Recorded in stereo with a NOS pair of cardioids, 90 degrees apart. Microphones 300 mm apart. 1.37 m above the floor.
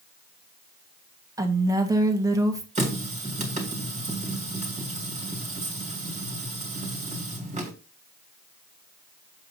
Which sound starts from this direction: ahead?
A woman speaking, at 1.4 s.